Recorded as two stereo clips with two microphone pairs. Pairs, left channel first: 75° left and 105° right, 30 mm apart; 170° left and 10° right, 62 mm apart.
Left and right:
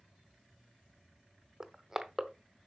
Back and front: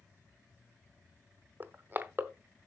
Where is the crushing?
45° right, 0.9 m.